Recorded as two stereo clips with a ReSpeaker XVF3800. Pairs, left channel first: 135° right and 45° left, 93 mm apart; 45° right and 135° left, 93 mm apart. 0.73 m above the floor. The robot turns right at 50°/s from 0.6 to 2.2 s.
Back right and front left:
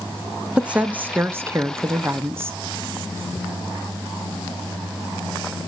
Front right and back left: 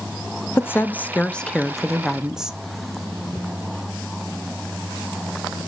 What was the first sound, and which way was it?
A woman speaking, 20° right.